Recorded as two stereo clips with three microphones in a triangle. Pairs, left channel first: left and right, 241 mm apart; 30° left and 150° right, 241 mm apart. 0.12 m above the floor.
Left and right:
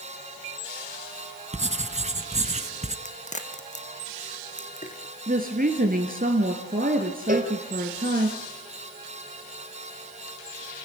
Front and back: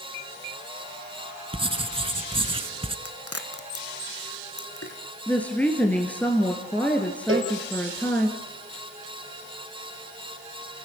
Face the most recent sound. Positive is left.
turn(degrees=-140)